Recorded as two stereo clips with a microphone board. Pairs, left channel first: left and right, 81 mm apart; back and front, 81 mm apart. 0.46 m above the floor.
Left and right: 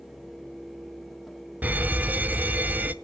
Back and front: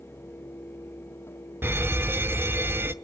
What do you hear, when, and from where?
1.6 s an alarm: 35° right, 0.6 m